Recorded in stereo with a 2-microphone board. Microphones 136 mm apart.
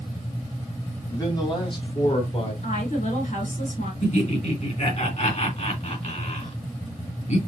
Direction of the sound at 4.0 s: 55° left (ahead or behind).